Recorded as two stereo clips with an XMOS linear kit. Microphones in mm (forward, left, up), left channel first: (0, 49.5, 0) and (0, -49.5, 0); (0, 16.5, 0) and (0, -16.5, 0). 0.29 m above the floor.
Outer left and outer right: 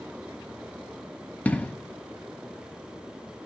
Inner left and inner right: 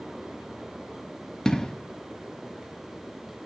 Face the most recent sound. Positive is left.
turn(degrees=15)  # may be behind; listen again after turning